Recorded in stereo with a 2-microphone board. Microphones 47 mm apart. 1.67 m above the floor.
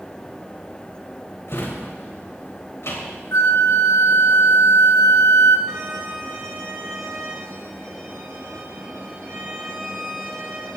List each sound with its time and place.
1.5 s a drawer: 60° left (ahead or behind), 3.5 m
3.3 s a flute: 85° left, 0.9 m
5.7 s a violin: 80° right, 5.5 m